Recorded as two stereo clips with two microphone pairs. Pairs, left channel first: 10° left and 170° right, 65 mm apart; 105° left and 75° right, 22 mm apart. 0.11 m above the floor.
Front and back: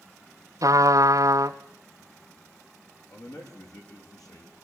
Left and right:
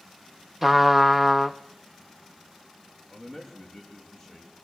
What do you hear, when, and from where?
0.6 s a trumpet: 150° right, 0.9 m
3.1 s a man speaking: 25° left, 7.5 m